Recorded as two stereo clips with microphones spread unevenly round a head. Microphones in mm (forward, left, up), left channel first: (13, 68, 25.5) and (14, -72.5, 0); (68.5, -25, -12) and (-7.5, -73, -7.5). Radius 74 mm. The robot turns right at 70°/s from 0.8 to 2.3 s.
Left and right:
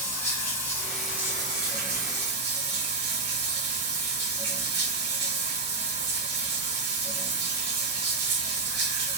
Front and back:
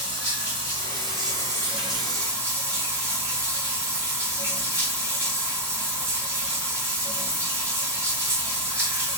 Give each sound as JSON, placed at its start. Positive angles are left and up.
{"t": 0.0, "sound": "running water", "azimuth_deg": 155, "distance_m": 1.7}